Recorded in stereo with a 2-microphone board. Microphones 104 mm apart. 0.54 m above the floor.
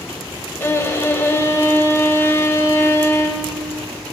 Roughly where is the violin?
Left.